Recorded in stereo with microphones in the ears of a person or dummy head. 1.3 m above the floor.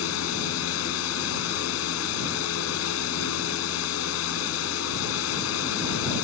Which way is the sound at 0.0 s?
80° left.